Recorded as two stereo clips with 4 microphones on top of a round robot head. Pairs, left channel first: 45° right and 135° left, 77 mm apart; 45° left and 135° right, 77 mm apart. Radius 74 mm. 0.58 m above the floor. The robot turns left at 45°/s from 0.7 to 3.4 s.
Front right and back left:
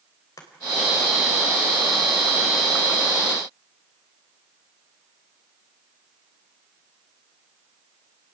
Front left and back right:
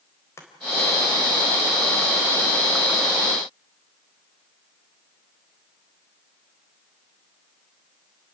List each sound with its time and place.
0.4 s chopping: 5° right, 3.5 m